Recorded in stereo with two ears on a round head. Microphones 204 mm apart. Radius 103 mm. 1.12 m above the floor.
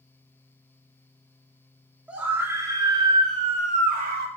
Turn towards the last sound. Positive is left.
turn(degrees=-40)  # may be behind; listen again after turning